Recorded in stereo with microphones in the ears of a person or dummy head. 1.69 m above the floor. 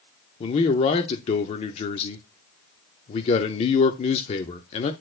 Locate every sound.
0.4 s a man speaking: 35° left (ahead or behind), 0.7 m